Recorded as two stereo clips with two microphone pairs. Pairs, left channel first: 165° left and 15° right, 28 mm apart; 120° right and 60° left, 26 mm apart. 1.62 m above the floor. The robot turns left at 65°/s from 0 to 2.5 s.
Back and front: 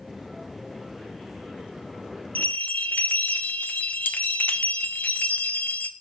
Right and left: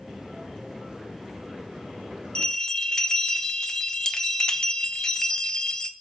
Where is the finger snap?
No finger snap in this recording.